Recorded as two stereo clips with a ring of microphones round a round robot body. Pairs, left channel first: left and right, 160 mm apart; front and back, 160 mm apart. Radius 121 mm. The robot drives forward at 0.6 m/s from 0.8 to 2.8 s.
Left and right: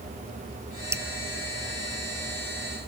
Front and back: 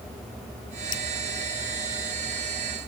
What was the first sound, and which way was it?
Dripping, 15° right.